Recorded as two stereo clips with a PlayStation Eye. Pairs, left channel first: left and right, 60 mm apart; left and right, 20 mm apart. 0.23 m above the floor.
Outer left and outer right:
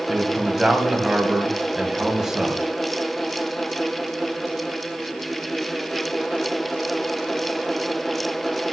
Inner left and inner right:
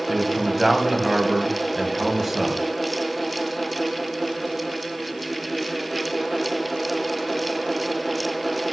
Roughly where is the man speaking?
Centre.